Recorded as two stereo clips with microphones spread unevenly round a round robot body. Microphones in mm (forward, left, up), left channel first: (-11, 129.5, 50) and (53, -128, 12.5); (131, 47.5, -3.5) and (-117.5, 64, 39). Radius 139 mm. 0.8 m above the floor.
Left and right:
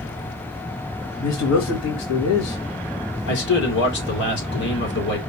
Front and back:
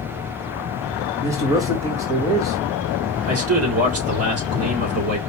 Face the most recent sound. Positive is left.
turn(degrees=150)